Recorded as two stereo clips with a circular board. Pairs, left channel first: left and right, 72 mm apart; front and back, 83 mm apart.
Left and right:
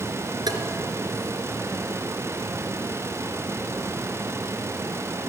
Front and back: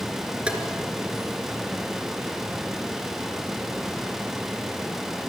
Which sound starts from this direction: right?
Tapping, at 0.5 s.